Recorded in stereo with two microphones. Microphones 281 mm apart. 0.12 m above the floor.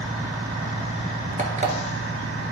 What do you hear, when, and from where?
1.4 s an alarm clock: 25° right (ahead or behind), 1.4 m